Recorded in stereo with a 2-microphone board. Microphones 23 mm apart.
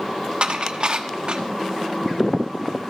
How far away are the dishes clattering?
About 1.1 m.